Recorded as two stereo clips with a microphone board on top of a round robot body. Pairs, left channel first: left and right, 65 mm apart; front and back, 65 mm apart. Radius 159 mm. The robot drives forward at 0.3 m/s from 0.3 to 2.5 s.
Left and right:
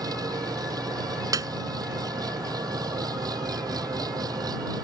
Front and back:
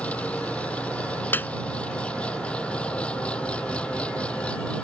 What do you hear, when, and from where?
0.0 s an engine running: 70° right; by 4.8 s 75° right
1.3 s a piano: 60° right